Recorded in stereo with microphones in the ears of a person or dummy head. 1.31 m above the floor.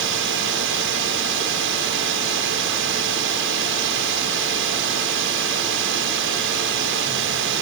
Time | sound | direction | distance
0.0 | a drone | 65° right (ahead or behind) | ?